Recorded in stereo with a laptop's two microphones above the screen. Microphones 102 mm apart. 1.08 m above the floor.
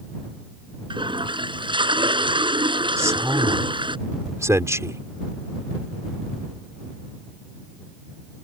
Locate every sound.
0.9 s a toilet flushing: 50° right (ahead or behind)
3.0 s a man speaking: 30° right (ahead or behind)